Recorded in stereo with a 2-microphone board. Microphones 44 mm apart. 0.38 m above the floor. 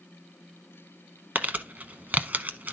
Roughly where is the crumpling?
Right.